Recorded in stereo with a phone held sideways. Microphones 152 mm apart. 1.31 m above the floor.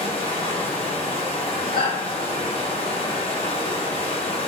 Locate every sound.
0.0 s running water: 40° left (ahead or behind), 0.8 m
1.7 s a shout: 80° left, 1.4 m